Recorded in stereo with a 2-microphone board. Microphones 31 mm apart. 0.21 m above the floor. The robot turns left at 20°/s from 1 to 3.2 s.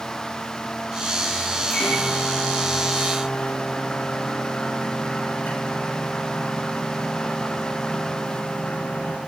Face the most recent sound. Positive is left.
turn(degrees=85)